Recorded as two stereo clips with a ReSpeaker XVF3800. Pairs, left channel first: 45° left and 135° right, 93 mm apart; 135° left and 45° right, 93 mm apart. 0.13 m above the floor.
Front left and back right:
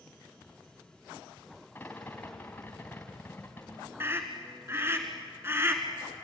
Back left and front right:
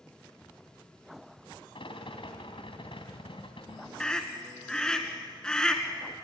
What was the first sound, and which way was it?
A rattle, 115° left.